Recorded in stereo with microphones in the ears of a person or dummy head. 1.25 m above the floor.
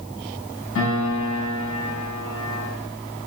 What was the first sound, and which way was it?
A piano, 70° left (ahead or behind).